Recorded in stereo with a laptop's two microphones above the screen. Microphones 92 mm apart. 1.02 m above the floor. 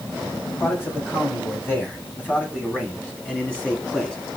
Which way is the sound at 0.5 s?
25° left (ahead or behind).